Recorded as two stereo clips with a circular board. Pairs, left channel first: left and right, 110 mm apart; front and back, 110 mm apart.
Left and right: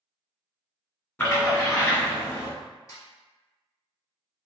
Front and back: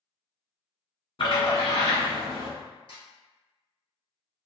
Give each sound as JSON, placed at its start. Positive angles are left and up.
{"t": 1.2, "sound": "a splash", "azimuth_deg": 20, "distance_m": 1.7}
{"t": 2.9, "sound": "a snare drum", "azimuth_deg": 30, "distance_m": 1.1}